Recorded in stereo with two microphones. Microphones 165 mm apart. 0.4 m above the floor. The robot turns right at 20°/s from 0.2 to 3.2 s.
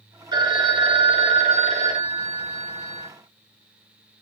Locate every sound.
0.3 s a phone ringing: 145° right, 0.6 m; by 3.1 s 90° right, 0.6 m